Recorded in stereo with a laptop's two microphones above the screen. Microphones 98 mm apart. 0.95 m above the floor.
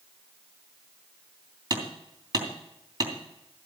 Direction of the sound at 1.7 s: 45° right (ahead or behind).